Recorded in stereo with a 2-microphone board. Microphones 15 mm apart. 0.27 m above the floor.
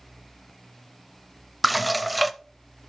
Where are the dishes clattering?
5° right (ahead or behind), 0.6 m.